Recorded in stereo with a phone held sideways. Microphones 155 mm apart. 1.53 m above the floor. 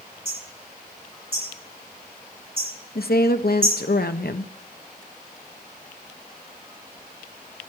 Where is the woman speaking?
80° left, 0.8 m.